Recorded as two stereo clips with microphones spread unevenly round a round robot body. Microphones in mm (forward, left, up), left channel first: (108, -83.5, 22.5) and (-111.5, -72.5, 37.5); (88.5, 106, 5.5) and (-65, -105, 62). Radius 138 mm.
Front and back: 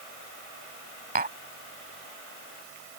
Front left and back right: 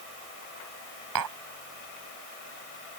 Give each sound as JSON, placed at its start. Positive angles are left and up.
{"t": 1.1, "sound": "tapping", "azimuth_deg": -130}